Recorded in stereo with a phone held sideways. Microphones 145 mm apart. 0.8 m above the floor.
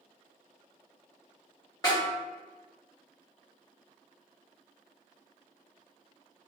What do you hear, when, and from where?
1.8 s a snare drum: 25° left (ahead or behind), 1.3 m